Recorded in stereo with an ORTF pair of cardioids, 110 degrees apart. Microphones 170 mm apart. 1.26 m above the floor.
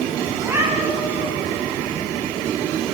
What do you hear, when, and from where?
0.4 s a cat meowing: 15° right, 6.5 m